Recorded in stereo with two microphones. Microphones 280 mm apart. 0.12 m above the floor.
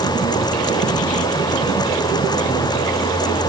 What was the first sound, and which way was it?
Only background noise.